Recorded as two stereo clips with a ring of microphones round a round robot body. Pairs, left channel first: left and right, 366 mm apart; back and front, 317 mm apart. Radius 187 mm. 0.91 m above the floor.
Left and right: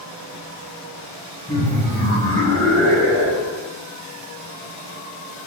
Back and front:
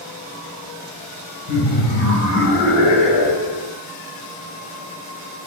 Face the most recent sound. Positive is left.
turn(degrees=-140)